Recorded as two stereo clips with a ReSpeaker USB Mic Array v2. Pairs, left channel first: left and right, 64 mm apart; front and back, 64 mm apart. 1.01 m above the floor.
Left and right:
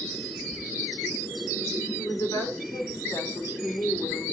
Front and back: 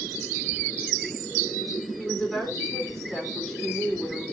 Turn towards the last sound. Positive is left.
turn(degrees=85)